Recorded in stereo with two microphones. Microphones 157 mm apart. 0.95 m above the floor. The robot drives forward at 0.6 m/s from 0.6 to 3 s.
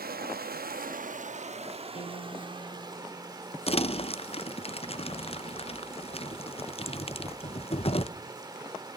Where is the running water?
75° right (ahead or behind), 0.8 m; by 9.0 s 25° right (ahead or behind), 1.8 m.